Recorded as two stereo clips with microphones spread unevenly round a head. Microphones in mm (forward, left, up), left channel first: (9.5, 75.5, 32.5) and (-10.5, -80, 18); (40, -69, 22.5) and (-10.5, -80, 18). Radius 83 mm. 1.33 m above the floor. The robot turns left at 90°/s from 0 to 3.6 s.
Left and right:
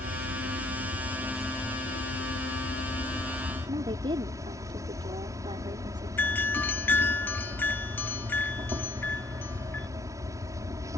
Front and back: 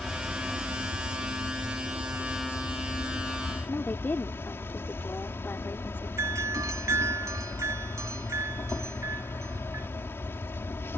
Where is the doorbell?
165° left.